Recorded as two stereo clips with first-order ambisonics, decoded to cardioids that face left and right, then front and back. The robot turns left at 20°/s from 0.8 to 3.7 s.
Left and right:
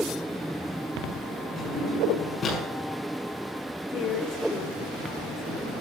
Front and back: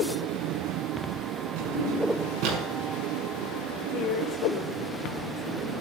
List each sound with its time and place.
1.6 s a drawer: 170° left, 7 m; by 2.6 s 150° left, 7 m
3.9 s a woman speaking: 50° left, 3 m